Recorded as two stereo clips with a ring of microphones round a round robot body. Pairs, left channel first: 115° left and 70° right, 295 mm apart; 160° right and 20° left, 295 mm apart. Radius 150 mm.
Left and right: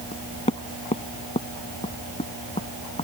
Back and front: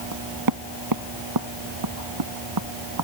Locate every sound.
0.1 s knocking: 40° left